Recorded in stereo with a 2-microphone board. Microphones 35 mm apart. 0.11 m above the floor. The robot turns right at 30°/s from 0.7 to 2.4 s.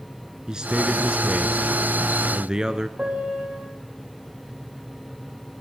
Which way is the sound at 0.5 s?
20° right (ahead or behind).